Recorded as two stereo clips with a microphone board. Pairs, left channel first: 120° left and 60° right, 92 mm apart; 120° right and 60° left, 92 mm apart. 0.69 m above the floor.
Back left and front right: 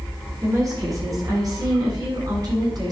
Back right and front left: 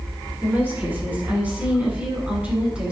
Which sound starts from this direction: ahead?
A woman speaking, at 0.4 s.